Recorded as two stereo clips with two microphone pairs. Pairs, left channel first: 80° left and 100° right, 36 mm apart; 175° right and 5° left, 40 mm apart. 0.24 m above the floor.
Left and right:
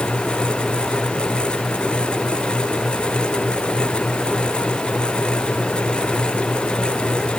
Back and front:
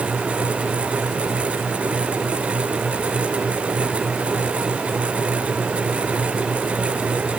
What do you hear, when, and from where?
Only background noise.